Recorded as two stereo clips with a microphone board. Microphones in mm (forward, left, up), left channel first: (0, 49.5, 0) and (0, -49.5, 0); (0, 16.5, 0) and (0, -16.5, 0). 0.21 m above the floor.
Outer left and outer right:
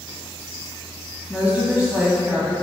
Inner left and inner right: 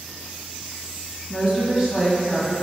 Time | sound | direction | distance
1.3 | a woman speaking | 15° right (ahead or behind) | 1.3 m